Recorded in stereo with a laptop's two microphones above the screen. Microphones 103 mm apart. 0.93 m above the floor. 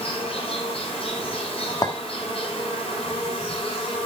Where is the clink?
35° left (ahead or behind), 1.5 m.